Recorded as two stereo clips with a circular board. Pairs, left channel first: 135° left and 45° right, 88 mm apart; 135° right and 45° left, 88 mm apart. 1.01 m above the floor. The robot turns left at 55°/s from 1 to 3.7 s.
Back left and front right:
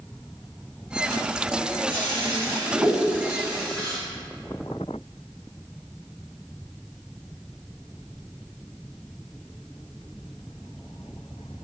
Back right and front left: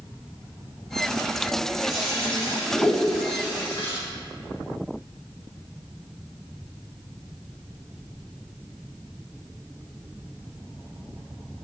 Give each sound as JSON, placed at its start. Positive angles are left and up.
{"t": 1.9, "sound": "a toilet flushing", "azimuth_deg": -40, "distance_m": 1.8}